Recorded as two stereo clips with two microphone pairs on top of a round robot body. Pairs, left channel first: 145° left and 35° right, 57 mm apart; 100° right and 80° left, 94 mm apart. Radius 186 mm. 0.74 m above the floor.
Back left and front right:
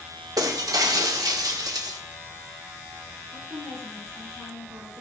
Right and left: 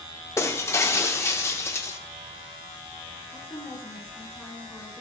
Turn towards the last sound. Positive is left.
turn(degrees=-10)